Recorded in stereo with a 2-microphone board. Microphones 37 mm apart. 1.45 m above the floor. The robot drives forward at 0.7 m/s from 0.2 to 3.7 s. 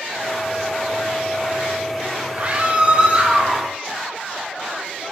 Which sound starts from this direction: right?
A scream, at 2.3 s.